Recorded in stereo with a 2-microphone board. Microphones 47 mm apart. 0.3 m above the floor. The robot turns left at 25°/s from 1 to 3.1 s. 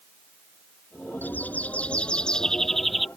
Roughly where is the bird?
Ahead left.